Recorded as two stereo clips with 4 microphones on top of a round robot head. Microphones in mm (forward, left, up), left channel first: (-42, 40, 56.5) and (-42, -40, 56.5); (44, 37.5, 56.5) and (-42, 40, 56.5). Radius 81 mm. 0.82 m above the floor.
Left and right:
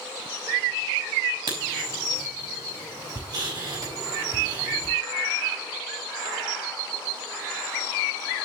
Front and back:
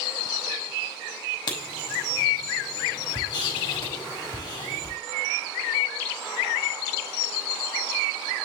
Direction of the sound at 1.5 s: 45° right.